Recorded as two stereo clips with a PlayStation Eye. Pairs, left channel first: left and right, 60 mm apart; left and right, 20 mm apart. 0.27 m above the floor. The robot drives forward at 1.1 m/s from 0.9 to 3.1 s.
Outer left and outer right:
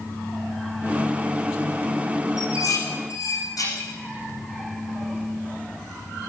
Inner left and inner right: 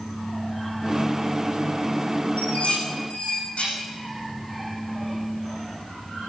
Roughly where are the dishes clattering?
Left.